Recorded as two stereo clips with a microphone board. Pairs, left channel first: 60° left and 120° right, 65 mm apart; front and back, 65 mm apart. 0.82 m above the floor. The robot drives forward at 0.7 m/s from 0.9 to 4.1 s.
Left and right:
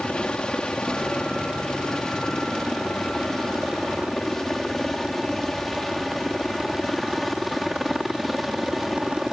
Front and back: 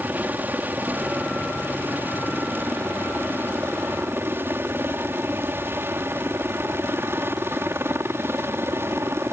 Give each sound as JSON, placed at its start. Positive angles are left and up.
{"t": 0.0, "sound": "a helicopter", "azimuth_deg": 130}